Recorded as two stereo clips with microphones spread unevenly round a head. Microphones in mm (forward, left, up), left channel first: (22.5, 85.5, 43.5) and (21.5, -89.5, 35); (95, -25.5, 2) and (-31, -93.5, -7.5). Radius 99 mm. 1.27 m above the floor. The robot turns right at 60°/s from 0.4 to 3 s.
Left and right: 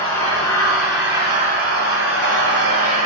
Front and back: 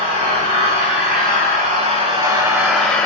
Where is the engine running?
150° left, 1.4 m; by 3.1 s 55° right, 1.4 m.